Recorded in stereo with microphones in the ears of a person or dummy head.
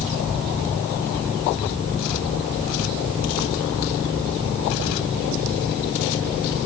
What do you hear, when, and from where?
Only background noise.